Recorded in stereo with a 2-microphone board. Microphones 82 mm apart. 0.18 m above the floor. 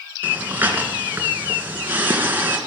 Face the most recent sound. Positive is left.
turn(degrees=-25)  # may be behind; listen again after turning